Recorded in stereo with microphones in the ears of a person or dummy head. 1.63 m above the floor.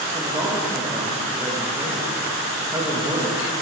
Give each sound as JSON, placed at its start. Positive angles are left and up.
{"t": 0.1, "sound": "a man speaking", "side_deg": -15, "distance_m": 3.0}